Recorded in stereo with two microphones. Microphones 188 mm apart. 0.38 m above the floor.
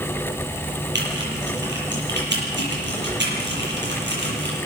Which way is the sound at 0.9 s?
75° right (ahead or behind).